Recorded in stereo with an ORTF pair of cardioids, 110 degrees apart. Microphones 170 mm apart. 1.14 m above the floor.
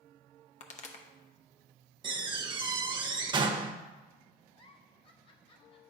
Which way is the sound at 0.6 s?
45° left.